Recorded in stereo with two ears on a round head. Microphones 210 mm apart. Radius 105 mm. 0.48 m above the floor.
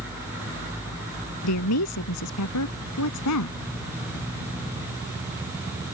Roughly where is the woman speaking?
Left.